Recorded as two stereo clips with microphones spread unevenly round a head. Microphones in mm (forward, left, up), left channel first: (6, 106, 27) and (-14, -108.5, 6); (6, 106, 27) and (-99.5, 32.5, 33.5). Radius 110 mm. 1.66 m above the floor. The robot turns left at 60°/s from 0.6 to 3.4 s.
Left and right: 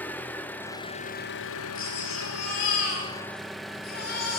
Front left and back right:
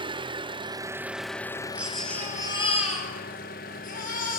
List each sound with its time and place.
0.0 s an engine running: 165° left, 0.9 m; by 4.4 s 5° right, 0.9 m
1.8 s a baby crying: 140° left, 5.5 m; by 4.4 s 40° left, 5.5 m